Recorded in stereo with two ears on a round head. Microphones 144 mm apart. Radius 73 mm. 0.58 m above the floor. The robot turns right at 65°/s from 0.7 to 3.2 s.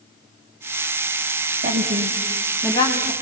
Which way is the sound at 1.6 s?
50° right (ahead or behind).